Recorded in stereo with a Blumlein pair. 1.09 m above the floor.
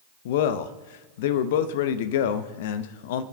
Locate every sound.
0.2 s a man speaking: 55° left, 0.8 m